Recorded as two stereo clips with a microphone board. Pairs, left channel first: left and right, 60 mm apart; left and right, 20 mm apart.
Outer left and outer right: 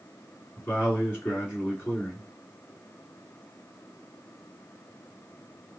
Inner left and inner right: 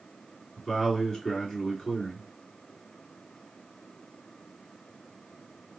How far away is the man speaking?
About 2.0 m.